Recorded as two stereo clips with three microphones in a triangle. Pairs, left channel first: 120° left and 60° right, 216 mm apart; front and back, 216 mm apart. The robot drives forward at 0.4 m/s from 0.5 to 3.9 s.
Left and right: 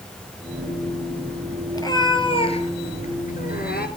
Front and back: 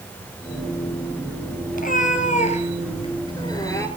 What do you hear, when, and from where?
1.7 s a cat meowing: 45° left, 1.6 m; by 3.9 s 80° left, 1.2 m